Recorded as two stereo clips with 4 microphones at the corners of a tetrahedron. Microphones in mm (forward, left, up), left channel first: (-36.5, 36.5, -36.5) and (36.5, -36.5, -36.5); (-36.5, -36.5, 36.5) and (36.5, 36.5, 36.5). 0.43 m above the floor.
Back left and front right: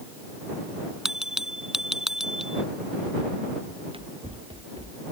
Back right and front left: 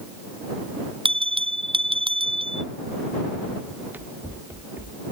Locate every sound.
1.1 s a bell: 40° left
3.7 s running footsteps: 30° right; by 5.0 s 20° right